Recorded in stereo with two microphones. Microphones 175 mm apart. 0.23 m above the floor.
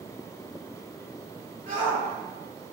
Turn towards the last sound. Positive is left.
turn(degrees=-50)  # may be behind; listen again after turning